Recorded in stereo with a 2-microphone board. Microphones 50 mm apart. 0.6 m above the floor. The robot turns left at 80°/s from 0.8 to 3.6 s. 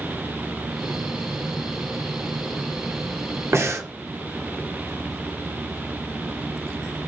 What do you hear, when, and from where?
3.5 s breathing: 55° right (ahead or behind), 1.2 m